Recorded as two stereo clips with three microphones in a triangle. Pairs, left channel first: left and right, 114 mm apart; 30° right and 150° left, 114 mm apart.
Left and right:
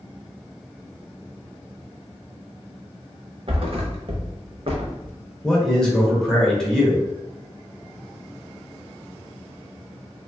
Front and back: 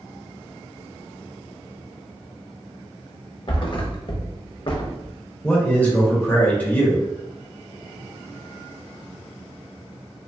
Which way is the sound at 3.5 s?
65° right.